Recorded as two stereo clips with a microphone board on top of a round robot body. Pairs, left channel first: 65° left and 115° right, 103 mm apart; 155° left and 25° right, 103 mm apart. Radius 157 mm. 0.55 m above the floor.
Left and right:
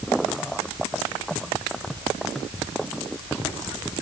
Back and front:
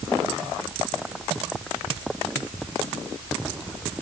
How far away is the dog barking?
I don't hear a dog barking.